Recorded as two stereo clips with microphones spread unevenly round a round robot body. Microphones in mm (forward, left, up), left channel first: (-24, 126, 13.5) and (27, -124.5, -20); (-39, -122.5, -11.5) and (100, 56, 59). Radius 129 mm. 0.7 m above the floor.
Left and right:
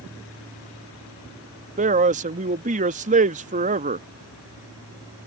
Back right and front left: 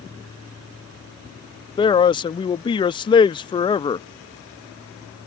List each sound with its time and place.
1.8 s a man speaking: 105° right